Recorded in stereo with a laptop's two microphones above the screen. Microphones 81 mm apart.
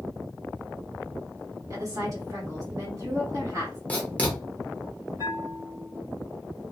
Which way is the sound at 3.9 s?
15° left (ahead or behind).